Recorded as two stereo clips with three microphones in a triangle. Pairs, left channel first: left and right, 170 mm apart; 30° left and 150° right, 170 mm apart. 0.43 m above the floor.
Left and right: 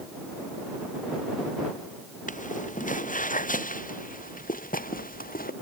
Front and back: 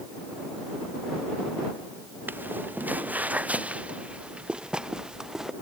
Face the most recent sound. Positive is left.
turn(degrees=125)